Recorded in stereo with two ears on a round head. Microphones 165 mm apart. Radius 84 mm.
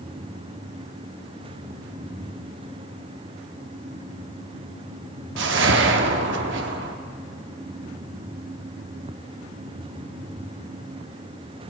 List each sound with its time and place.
5.4 s a whoosh: 70° right (ahead or behind), 1.0 m